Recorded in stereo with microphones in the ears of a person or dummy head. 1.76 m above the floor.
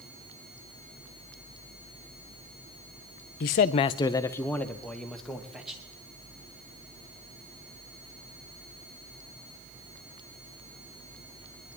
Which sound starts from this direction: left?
A man speaking, at 3.4 s.